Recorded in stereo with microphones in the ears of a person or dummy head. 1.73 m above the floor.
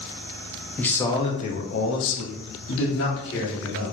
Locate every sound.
0.8 s a man speaking: 10° left (ahead or behind), 1.4 m; by 3.9 s 65° left (ahead or behind), 3 m